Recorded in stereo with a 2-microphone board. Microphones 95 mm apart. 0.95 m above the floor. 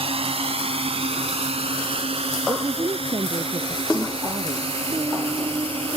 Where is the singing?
45° right (ahead or behind).